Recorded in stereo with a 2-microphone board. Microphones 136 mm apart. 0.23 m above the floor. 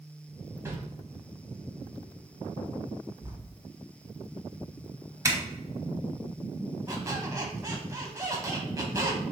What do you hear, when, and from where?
0.7 s a whoosh: 20° right (ahead or behind), 0.9 m
3.2 s writing: 25° right (ahead or behind), 1.6 m
5.2 s a zipper: 25° right (ahead or behind), 0.8 m
6.9 s a squeak: 25° right (ahead or behind), 0.9 m